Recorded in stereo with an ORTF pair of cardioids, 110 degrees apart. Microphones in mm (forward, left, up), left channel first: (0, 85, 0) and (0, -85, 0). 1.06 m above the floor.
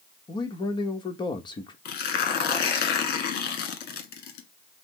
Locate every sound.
0.3 s a man speaking: 30° left, 1.1 m
1.9 s tearing paper: 70° left, 1.2 m